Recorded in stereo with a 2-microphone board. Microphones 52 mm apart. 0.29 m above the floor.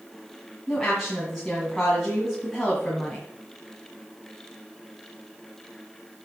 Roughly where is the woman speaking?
Centre.